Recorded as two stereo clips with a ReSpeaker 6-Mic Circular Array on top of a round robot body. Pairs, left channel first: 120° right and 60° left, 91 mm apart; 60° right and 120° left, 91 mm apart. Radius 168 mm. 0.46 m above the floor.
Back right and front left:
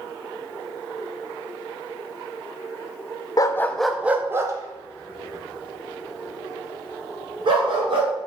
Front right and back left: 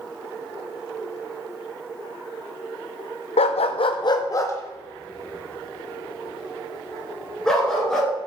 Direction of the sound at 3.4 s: 70° right.